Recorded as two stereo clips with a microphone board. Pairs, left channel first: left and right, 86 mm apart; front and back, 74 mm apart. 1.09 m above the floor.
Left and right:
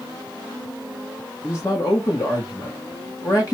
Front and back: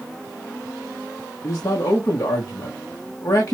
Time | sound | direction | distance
1.4 | a man speaking | 45° left | 1.0 m